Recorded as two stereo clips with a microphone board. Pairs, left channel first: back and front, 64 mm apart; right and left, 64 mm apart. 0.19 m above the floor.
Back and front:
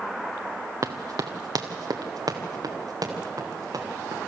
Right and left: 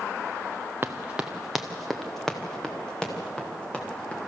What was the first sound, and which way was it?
Running footsteps, 30° left.